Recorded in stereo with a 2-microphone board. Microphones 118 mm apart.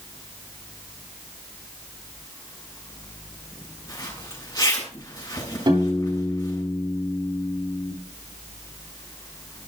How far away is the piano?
About 9 m.